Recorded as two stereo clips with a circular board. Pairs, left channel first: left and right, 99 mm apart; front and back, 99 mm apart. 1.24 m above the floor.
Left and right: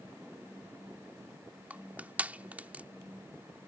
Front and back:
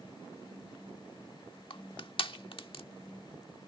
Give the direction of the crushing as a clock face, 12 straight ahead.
1 o'clock.